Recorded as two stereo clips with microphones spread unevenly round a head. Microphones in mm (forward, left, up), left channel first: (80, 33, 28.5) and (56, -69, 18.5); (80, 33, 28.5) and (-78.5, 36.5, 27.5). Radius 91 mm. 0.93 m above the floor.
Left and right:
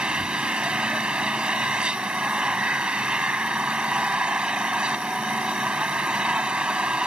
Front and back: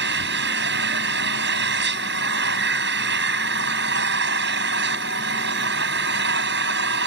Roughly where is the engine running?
Behind.